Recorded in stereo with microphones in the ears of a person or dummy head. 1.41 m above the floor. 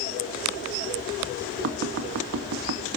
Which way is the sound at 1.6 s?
50° right (ahead or behind).